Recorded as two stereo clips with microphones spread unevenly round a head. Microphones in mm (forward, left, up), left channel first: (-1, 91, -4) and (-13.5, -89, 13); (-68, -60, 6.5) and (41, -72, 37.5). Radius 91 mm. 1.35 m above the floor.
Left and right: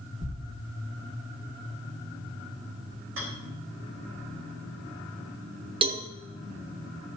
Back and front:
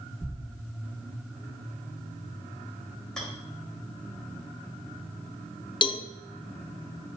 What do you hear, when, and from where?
0.2 s a thud: 100° right, 4.5 m
3.2 s a rattle: 100° right, 4 m
5.8 s a cowbell: 155° right, 1.0 m